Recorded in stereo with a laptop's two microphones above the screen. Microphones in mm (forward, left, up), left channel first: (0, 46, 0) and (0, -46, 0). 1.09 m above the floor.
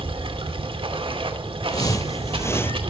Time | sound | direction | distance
0.0 | running water | 75° right (ahead or behind) | 2.5 m
1.7 | footsteps | 45° left (ahead or behind) | 1.6 m